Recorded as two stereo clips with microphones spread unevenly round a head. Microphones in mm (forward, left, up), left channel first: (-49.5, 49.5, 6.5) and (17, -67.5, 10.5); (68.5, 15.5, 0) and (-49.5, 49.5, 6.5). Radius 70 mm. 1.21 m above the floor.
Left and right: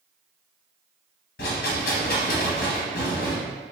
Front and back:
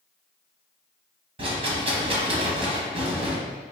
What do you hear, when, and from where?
1.4 s a rattle: 125° left, 0.8 m